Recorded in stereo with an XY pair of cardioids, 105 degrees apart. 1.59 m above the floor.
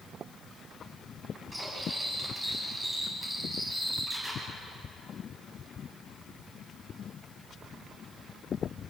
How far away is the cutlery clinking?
About 8.5 m.